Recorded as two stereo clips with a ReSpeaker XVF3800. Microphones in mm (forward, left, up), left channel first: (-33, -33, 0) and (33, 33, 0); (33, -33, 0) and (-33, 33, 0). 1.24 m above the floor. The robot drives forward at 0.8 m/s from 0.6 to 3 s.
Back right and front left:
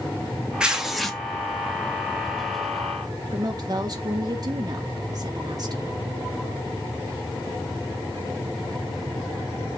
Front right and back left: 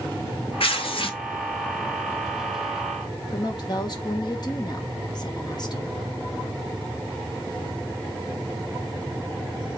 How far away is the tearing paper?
About 1.4 m.